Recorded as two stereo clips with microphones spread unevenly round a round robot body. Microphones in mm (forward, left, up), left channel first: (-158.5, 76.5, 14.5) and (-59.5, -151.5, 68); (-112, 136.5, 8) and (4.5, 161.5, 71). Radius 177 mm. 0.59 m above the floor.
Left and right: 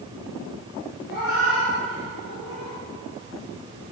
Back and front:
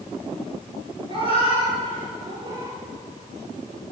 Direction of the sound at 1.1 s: 45° left.